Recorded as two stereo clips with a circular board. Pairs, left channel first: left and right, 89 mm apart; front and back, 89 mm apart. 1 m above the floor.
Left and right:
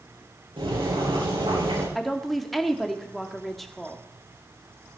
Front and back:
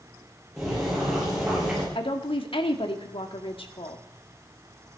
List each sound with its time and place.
0.6 s boiling: 95° right, 9 m
1.9 s a woman speaking: straight ahead, 1.9 m